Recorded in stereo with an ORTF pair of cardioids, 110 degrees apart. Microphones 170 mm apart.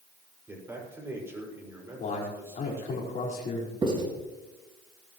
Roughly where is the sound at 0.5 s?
Ahead.